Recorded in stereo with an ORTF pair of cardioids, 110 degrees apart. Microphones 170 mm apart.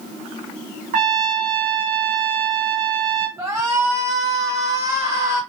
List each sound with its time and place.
0.9 s a trumpet: 60° right, 0.9 m
3.4 s a shout: 20° right, 1.3 m